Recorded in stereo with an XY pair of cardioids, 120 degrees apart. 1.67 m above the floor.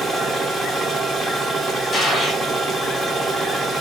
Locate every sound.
0.0 s a machine running: 15° right, 1.6 m
1.9 s a gunshot: 25° left, 2.5 m